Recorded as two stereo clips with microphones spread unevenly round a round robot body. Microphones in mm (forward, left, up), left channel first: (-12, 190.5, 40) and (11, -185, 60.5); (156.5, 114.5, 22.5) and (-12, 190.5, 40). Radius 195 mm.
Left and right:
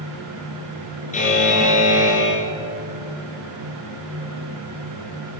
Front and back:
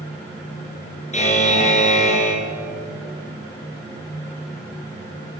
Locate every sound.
1.1 s a buzzer: 25° left, 5 m